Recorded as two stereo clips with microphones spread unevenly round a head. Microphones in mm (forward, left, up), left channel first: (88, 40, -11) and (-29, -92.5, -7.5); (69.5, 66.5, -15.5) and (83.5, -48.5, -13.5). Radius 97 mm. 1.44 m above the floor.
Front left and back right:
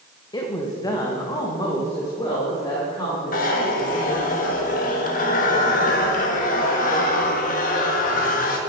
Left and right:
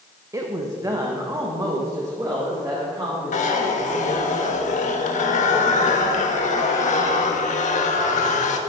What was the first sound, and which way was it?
A woman speaking, 20° right.